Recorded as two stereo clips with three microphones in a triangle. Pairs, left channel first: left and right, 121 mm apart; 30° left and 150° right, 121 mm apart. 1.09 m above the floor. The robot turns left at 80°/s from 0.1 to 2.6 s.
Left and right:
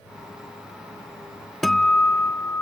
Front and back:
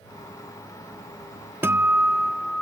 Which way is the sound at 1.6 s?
Straight behind.